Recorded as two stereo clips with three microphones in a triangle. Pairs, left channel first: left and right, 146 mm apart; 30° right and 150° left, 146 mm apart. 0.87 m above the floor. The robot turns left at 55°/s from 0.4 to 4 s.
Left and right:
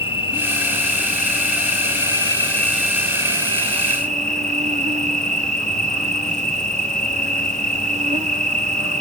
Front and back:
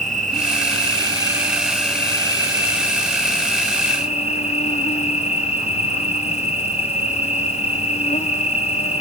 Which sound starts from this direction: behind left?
An insect, at 0.0 s.